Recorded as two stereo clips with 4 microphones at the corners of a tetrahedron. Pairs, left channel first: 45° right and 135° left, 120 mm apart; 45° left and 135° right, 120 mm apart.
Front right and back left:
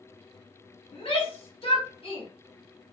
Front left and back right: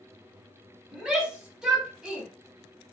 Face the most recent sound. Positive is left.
turn(degrees=-50)